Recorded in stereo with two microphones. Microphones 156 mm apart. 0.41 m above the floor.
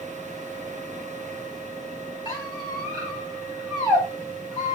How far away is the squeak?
About 1.7 m.